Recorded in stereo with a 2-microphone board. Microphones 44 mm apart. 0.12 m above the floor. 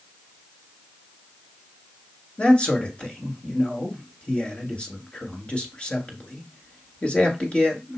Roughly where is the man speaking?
Left.